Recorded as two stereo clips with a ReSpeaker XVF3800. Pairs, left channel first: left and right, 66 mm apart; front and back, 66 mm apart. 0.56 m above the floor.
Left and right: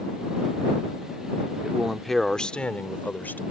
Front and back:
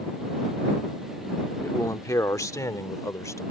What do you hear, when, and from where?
1.6 s a man speaking: 15° right; by 3.4 s 35° left